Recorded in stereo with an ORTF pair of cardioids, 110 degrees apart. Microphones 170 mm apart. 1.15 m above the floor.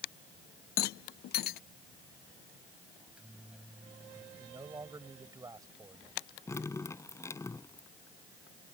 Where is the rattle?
65° left.